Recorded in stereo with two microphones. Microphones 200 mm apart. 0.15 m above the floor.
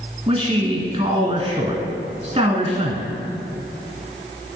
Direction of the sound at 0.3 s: 20° right (ahead or behind).